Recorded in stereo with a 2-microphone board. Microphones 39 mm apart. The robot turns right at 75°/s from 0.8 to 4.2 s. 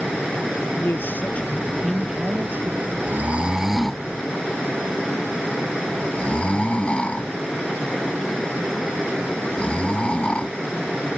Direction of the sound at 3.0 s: 55° right (ahead or behind).